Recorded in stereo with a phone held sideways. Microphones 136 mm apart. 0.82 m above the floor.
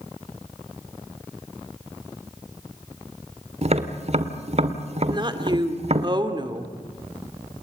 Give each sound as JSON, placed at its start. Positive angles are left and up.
{"t": 3.6, "sound": "tapping", "side_deg": -50, "distance_m": 1.7}
{"t": 5.1, "sound": "a woman speaking", "side_deg": -35, "distance_m": 2.5}